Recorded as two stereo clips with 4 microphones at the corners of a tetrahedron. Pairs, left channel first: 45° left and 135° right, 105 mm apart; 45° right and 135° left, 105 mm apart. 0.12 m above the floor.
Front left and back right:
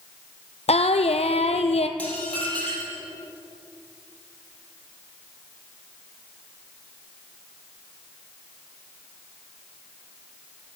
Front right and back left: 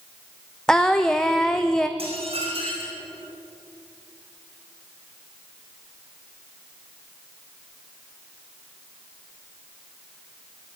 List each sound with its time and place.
0.7 s singing: 40° left, 0.8 m
2.0 s dishes clattering: 120° left, 3.5 m